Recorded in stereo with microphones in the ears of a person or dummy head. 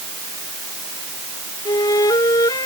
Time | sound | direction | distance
1.6 | a flute | 25° left (ahead or behind) | ?